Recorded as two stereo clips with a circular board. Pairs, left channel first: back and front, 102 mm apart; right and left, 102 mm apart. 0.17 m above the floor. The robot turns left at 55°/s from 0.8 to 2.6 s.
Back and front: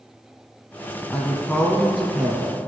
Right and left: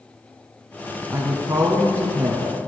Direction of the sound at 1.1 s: 130° left.